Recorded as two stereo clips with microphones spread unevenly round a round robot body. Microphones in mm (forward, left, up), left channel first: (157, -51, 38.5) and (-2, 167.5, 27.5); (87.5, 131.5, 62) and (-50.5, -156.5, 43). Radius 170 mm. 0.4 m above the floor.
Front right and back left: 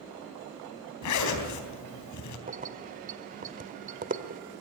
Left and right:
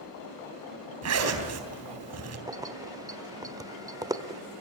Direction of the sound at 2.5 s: 175° left.